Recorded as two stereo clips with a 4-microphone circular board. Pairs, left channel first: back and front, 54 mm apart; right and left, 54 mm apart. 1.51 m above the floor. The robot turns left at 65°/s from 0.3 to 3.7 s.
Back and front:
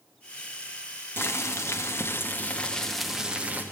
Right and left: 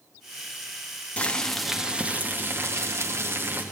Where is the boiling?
150° right, 1.2 m; by 3.6 s 50° left, 1.2 m.